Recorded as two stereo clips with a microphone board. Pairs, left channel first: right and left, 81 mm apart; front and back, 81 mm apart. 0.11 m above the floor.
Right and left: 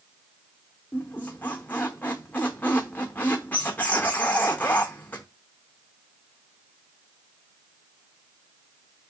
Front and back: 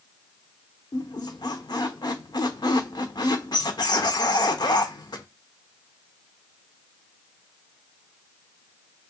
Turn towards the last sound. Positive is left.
turn(degrees=-20)